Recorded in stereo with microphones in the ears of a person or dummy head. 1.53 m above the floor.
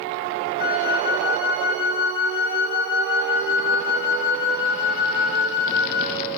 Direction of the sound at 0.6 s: 50° left (ahead or behind).